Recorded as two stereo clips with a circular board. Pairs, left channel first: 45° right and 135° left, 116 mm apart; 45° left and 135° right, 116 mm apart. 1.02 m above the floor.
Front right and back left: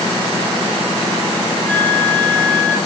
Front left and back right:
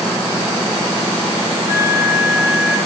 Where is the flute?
95° left, 3 m.